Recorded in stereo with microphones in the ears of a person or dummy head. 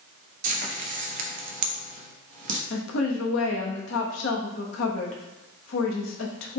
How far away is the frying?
About 0.9 m.